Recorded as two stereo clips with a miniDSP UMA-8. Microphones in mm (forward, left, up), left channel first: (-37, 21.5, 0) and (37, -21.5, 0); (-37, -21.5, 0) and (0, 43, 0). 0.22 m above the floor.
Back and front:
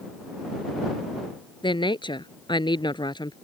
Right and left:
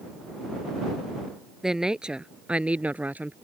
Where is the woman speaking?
145° left; by 3.3 s 125° left.